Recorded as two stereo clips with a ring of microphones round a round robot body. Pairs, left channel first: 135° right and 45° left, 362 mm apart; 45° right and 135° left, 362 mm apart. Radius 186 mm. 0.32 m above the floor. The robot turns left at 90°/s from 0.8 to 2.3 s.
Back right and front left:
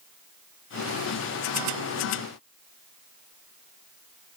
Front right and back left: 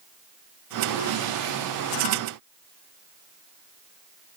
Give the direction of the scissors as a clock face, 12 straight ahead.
No scissors in this recording.